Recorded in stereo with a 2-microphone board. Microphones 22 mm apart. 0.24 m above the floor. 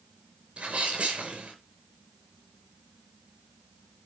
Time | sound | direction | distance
0.6 | a sneeze | 55° right (ahead or behind) | 4 m